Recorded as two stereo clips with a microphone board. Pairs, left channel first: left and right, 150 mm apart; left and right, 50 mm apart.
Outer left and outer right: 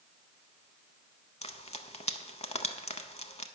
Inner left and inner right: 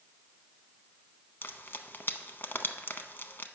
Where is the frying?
45° left (ahead or behind), 0.7 m.